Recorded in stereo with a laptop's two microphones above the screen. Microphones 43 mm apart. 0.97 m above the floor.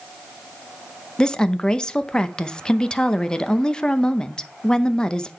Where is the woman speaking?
20° left (ahead or behind), 0.6 m.